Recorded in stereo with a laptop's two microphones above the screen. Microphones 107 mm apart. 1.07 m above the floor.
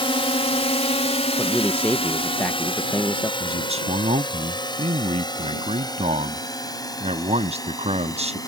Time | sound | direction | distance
0.0 | a drone | 55° left (ahead or behind) | ?
1.4 | a man speaking | 15° left (ahead or behind) | ?
3.4 | a man speaking | 70° right (ahead or behind) | ?